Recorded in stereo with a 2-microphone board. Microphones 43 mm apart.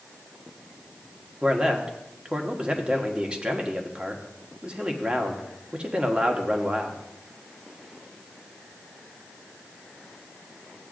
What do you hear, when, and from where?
1.4 s a man speaking: 25° right (ahead or behind), 1.2 m